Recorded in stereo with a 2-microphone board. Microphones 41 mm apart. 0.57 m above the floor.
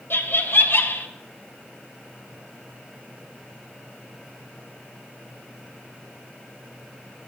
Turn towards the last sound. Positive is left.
turn(degrees=70)  # may be behind; listen again after turning